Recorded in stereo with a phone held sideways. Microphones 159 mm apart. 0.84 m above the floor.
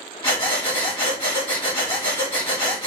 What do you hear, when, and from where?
0.2 s breathing: 30° left (ahead or behind), 1.8 m